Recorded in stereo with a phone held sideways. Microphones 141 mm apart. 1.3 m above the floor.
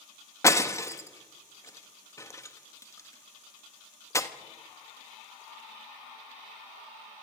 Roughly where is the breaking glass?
Left.